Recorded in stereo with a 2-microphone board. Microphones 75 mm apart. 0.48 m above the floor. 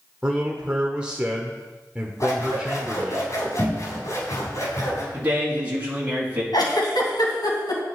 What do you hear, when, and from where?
0.2 s a man speaking: 15° right (ahead or behind), 1.2 m
2.2 s scissors: 45° left (ahead or behind), 3.5 m
5.1 s a man speaking: 25° right (ahead or behind), 4 m
6.5 s a giggle: 75° left (ahead or behind), 3 m